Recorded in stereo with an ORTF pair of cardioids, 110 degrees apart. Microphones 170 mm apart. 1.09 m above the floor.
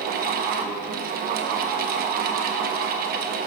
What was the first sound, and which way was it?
A fan, 60° right.